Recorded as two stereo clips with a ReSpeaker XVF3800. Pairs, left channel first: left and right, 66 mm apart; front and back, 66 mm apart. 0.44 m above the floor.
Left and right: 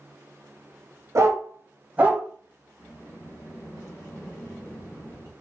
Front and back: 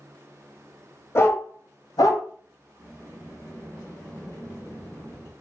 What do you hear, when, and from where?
1.1 s a dog barking: 50° right, 0.9 m; by 2.2 s 20° right, 1.3 m
2.8 s a sliding door: 45° left, 2 m